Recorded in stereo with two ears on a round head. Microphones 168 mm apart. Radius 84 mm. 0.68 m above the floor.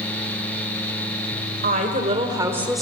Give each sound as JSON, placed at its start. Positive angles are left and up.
{"t": 1.6, "sound": "a woman speaking", "side_deg": -45, "distance_m": 2.5}